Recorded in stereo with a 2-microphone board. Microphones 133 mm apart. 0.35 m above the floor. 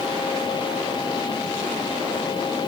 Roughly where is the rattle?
I don't hear a rattle.